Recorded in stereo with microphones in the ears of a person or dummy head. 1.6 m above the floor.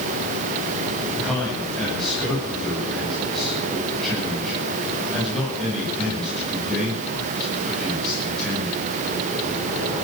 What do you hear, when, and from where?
1.2 s a man speaking: 5° left (ahead or behind), 9.5 m